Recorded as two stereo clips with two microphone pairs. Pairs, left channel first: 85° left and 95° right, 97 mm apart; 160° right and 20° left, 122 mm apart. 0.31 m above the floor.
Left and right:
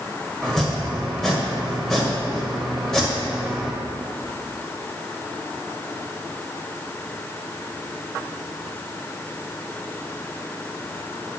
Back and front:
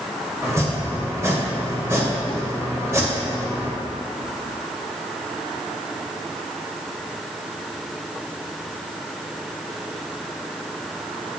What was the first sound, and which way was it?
Chopping, straight ahead.